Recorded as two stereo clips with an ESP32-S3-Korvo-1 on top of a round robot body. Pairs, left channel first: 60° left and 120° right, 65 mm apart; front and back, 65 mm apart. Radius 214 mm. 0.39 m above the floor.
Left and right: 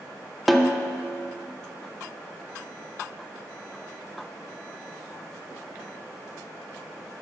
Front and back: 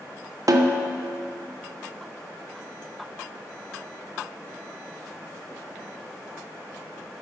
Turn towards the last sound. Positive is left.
turn(degrees=150)